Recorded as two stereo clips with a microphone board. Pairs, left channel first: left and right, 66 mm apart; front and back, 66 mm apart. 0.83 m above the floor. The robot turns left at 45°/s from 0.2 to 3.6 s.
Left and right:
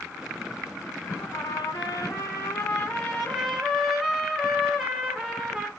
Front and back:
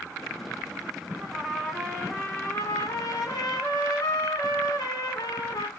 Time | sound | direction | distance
1.2 | a trumpet | 105° left | 1.4 m